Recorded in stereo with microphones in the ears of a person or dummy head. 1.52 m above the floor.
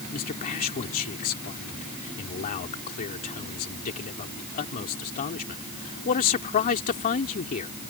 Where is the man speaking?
45° left (ahead or behind).